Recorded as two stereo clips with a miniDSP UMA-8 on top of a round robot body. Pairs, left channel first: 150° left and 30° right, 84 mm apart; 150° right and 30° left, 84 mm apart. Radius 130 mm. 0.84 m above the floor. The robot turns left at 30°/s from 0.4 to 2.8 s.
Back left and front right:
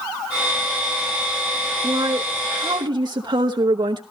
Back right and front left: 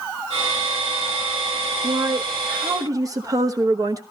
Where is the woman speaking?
15° left, 1.1 m; by 4.0 s 10° right, 1.1 m.